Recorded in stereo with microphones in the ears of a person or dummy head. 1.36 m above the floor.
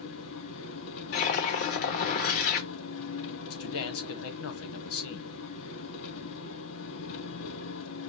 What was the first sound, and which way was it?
An engine running, 75° left (ahead or behind).